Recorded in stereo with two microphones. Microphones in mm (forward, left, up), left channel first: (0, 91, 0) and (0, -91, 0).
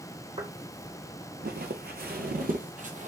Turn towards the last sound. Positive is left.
turn(degrees=-45)  # may be behind; listen again after turning